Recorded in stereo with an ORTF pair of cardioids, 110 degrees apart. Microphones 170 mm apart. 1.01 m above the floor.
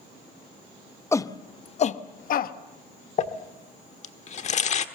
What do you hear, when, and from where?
1.1 s a shout: 15° left, 0.9 m; by 2.5 s 60° left, 1.2 m
3.2 s crumpling: 45° left, 1.3 m